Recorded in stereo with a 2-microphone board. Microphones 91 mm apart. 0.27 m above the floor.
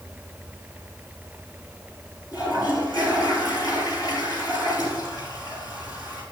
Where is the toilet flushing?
45° left (ahead or behind), 3.5 m.